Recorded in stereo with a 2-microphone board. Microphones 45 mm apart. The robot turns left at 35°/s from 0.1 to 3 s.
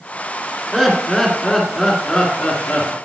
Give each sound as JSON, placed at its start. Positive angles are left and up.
{"t": 0.7, "sound": "laughter", "azimuth_deg": -160, "distance_m": 2.0}